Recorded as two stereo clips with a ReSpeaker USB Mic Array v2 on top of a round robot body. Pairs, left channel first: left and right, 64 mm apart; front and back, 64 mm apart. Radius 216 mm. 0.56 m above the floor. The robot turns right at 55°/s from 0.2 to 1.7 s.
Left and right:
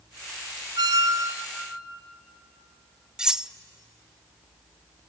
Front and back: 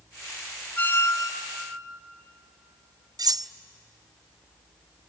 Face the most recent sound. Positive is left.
turn(degrees=-170)